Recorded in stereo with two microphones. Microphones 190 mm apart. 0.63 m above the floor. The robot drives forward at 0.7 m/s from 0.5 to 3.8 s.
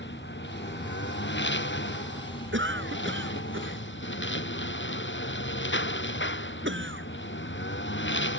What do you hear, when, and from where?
0.0 s a lawn mower: 70° left (ahead or behind); by 8.4 s 75° left (ahead or behind)
2.5 s a cough: 85° right